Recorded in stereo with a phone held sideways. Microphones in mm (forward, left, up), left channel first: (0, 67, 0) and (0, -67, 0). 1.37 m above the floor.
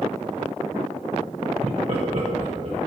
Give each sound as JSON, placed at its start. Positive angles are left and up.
{"t": 1.6, "sound": "laughter", "side_deg": -50, "distance_m": 0.5}